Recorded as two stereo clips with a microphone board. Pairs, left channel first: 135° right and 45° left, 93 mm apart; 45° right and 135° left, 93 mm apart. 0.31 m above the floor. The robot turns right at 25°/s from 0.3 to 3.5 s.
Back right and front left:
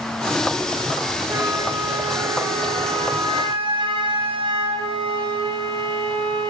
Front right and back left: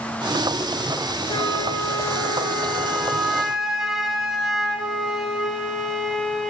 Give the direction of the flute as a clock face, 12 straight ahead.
12 o'clock.